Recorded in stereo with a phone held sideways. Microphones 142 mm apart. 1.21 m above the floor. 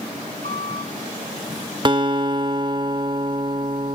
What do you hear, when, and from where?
0.4 s a squeak: 70° left (ahead or behind), 7 m
1.9 s a guitar: 35° right (ahead or behind), 0.8 m